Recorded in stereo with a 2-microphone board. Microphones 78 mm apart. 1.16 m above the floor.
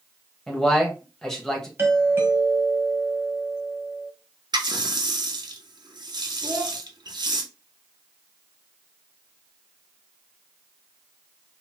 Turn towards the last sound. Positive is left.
turn(degrees=-30)  # may be behind; listen again after turning